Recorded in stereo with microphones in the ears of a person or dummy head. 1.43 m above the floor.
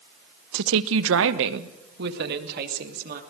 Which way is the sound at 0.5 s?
65° right (ahead or behind).